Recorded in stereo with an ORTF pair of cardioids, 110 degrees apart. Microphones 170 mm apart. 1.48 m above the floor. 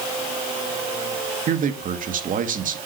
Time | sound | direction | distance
1.5 | a man speaking | 55° right | 2.5 m